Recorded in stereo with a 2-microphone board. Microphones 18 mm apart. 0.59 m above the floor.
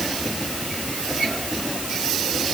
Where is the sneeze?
No sneeze in this recording.